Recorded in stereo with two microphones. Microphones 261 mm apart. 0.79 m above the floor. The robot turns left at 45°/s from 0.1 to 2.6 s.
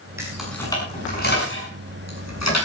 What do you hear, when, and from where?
0.2 s keys jangling: 10° right (ahead or behind), 6.5 m; by 2.6 s 80° left, 6.5 m